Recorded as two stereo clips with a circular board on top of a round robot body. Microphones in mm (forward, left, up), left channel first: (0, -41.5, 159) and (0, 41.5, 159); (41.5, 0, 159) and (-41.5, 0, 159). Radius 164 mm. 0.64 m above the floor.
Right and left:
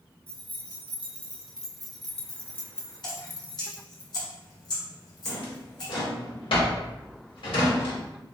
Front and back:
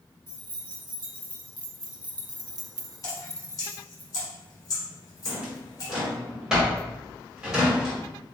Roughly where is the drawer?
Right.